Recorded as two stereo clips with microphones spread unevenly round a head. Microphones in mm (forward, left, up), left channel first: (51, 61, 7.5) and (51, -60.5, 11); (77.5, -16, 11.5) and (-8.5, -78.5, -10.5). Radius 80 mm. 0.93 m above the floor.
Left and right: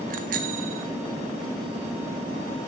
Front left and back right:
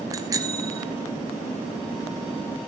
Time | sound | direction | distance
0.1 | a bicycle bell | 85° right | 3 m